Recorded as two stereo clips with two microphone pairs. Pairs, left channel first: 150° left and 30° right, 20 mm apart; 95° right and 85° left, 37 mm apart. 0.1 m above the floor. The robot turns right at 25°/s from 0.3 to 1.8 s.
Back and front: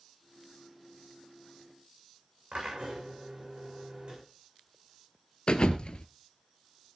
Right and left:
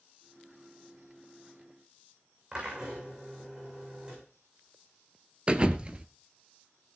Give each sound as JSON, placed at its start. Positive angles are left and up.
{"t": 2.5, "sound": "a drill", "azimuth_deg": 20, "distance_m": 7.0}
{"t": 5.5, "sound": "a thud", "azimuth_deg": 135, "distance_m": 0.9}